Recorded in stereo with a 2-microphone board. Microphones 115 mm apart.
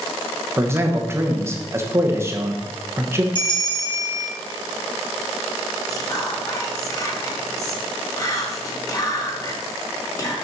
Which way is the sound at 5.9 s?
30° left (ahead or behind).